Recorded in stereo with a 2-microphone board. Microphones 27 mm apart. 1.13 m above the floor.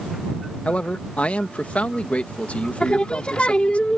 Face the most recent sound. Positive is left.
turn(degrees=45)  # may be behind; listen again after turning